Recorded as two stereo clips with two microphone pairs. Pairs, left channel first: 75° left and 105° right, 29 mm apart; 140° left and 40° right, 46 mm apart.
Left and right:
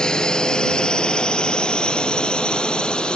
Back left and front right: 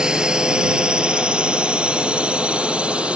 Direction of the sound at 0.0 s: 25° left.